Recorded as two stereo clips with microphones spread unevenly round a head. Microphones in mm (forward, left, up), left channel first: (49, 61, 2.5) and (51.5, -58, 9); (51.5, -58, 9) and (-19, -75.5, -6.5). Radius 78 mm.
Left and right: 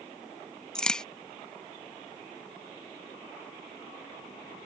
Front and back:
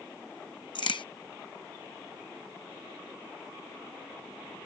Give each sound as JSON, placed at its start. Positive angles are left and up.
{"t": 0.8, "sound": "a crack", "azimuth_deg": 10}